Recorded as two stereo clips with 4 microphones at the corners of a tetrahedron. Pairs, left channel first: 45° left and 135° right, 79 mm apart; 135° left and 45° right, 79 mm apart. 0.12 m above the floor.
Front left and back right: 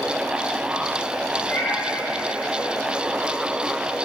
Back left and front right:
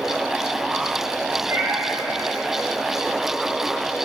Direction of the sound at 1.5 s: Straight ahead.